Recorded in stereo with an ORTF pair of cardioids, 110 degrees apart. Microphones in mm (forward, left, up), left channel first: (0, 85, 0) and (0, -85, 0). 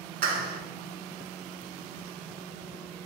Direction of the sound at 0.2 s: 65° right.